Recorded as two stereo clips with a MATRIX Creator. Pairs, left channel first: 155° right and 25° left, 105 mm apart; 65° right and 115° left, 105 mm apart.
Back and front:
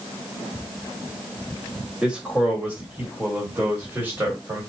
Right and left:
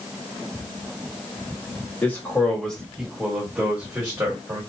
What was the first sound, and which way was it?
A man speaking, 45° right.